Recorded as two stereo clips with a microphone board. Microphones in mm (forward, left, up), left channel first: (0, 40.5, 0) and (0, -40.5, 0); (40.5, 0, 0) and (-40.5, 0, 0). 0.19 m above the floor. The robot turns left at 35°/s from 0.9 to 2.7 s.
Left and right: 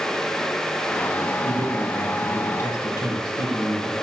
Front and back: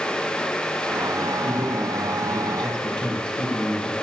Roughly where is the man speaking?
Behind left.